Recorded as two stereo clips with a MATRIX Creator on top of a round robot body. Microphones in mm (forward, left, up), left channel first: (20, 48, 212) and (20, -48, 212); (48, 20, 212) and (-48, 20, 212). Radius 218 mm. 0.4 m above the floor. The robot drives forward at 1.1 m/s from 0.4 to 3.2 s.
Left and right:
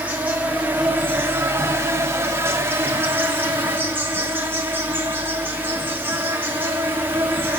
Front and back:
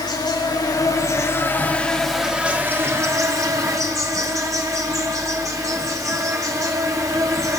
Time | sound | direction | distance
0.0 | an insect | 20° right | 2.5 m